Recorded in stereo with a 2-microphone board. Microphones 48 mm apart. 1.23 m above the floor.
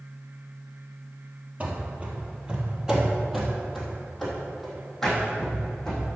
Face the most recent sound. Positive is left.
turn(degrees=10)  # may be behind; listen again after turning